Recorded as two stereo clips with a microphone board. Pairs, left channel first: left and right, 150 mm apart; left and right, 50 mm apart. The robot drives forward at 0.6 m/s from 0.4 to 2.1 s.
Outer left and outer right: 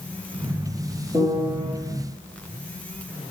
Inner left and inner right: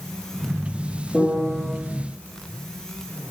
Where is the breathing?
I don't hear breathing.